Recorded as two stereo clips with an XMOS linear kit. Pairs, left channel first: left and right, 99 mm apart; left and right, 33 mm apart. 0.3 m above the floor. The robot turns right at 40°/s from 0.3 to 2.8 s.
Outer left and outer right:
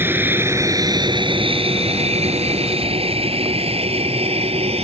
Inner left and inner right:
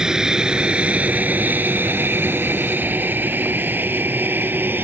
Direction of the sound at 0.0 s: 20° right (ahead or behind).